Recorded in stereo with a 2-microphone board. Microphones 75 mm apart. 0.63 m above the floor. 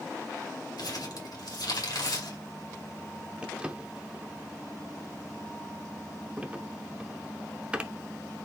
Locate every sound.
0.8 s crumpling: 70° left (ahead or behind), 2 m
3.4 s a drawer: 20° right (ahead or behind), 0.7 m